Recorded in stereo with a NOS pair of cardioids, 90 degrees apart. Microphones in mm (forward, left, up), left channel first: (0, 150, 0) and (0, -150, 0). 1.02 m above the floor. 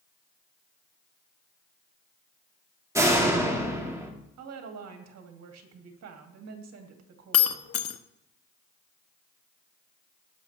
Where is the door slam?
10° right, 1.9 m.